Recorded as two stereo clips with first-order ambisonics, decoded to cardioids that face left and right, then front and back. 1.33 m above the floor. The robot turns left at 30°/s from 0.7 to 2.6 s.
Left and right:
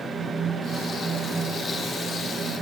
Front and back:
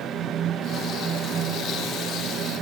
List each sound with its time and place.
Only background noise.